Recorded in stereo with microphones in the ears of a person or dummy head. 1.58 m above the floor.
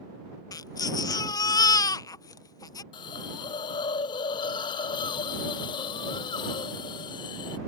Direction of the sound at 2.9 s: 30° left (ahead or behind).